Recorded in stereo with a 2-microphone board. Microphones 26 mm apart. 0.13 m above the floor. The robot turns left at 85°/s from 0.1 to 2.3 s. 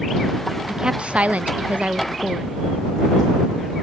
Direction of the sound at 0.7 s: 20° right.